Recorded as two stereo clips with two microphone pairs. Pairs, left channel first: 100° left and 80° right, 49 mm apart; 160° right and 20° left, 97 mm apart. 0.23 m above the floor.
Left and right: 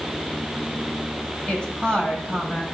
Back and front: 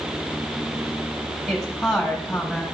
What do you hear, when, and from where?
1.5 s a woman speaking: 100° left, 1.6 m